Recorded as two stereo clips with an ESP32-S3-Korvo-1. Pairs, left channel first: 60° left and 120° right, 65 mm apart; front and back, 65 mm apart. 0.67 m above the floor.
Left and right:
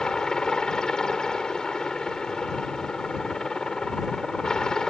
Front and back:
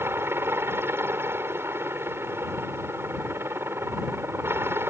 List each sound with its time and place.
0.0 s a helicopter: 140° left